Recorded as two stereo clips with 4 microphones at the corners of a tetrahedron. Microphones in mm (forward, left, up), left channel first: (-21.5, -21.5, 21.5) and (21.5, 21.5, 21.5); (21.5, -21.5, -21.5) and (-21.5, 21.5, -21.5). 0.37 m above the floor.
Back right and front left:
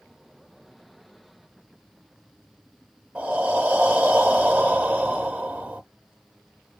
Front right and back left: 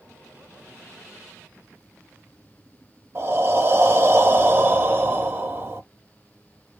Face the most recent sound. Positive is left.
turn(degrees=100)